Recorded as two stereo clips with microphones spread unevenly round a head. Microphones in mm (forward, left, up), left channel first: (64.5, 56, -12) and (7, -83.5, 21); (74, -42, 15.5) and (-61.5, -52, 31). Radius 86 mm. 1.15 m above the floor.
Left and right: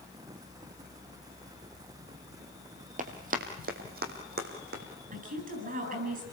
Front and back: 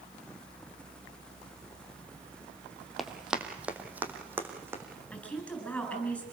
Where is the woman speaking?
80° right, 8.5 m.